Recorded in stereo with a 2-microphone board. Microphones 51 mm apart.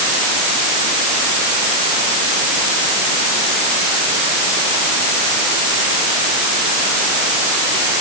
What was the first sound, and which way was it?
Only background noise.